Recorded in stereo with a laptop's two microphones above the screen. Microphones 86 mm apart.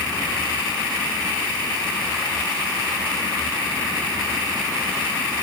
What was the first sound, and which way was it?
Only background noise.